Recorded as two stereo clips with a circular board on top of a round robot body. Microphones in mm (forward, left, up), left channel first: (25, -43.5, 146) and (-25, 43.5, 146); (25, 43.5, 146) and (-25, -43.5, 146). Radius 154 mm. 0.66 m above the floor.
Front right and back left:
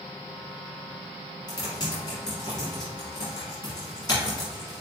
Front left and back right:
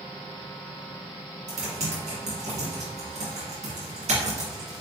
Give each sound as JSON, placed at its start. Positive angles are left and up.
{"t": 1.5, "sound": "typing on a keyboard", "azimuth_deg": -115, "distance_m": 1.4}